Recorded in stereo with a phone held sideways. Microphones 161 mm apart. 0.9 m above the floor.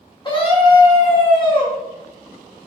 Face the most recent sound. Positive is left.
turn(degrees=30)  # may be behind; listen again after turning